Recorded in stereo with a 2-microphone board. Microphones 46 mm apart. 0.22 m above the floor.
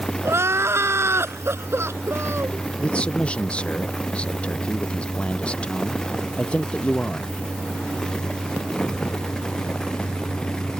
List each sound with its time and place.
0.2 s crying: 65° right (ahead or behind)
2.8 s a man speaking: 25° left (ahead or behind)